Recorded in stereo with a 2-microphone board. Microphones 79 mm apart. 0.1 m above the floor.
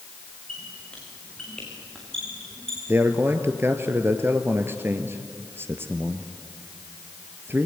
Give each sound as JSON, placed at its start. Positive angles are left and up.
{"t": 0.5, "sound": "a squeak", "side_deg": 10, "distance_m": 6.5}
{"t": 2.9, "sound": "a man speaking", "side_deg": -30, "distance_m": 1.7}